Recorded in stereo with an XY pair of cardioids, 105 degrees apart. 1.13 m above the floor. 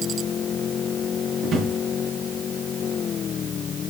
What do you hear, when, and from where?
1.4 s a drawer: 55° right, 5.5 m